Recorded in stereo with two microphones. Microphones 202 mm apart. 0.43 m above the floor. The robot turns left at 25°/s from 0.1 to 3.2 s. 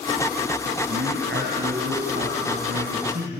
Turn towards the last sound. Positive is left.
turn(degrees=-135)